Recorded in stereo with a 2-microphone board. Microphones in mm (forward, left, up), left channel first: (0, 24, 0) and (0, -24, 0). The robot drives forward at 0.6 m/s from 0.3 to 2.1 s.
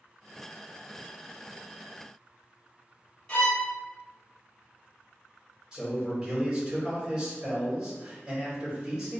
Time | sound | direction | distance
3.3 | a violin | 25° left (ahead or behind) | 1.6 m
5.7 | a man speaking | 20° right (ahead or behind) | 1.9 m